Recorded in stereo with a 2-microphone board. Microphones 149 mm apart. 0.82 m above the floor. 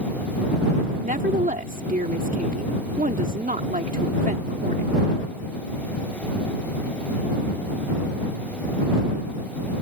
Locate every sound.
1.0 s a woman speaking: 65° right (ahead or behind)